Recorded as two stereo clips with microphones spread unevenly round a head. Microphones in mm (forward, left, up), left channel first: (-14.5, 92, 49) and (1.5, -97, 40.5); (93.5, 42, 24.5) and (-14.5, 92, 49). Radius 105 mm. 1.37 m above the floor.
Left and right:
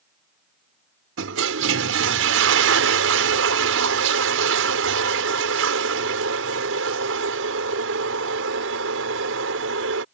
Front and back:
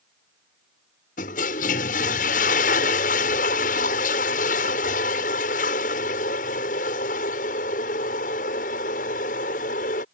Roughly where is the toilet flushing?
Ahead right.